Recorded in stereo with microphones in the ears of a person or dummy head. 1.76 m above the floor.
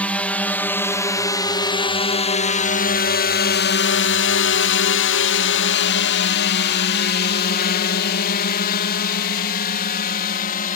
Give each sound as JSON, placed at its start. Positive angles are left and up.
{"t": 0.0, "sound": "a drone", "side_deg": 5}